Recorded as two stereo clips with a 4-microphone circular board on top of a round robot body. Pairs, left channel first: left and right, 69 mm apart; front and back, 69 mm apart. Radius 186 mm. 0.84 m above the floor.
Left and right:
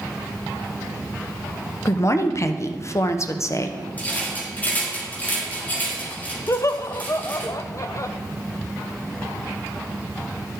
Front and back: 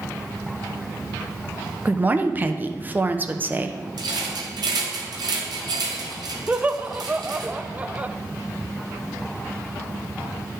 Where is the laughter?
115° left, 0.6 m.